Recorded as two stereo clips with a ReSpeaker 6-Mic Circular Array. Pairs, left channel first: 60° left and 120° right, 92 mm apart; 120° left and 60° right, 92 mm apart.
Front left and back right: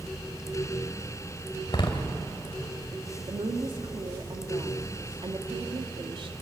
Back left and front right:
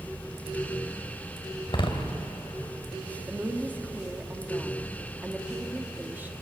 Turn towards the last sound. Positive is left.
turn(degrees=-130)